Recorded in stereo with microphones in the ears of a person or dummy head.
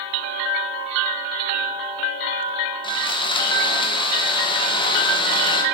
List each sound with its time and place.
2.8 s sawing: 25° left (ahead or behind), 0.7 m